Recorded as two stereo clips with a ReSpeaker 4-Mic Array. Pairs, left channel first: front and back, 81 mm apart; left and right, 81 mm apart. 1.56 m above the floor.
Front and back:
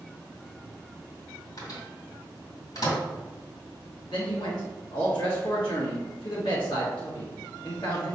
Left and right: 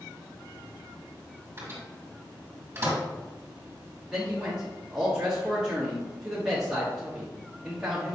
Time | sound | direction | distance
1.6 | a microwave | 30° right | 1.9 m
4.1 | a man speaking | 10° right | 1.1 m